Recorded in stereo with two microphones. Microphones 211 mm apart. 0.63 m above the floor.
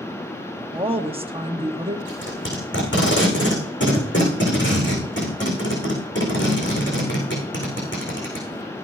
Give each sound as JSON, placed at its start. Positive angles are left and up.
{"t": 0.7, "sound": "a woman speaking", "side_deg": -25, "distance_m": 1.1}
{"t": 2.1, "sound": "tape being pulled", "side_deg": 60, "distance_m": 7.5}